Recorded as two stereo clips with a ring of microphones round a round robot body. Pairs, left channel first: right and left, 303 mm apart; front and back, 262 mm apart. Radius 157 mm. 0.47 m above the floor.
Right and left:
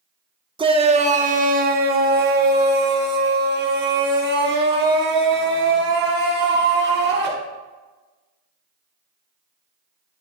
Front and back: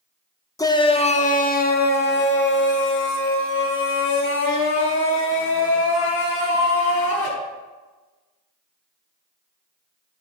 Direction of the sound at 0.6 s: 50° left.